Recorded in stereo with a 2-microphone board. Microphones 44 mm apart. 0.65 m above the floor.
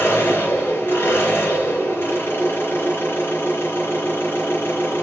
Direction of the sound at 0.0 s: 60° left (ahead or behind).